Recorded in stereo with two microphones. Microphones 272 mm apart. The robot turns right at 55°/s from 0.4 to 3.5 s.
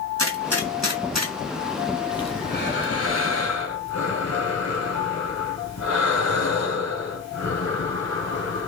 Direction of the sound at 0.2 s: 55° right (ahead or behind).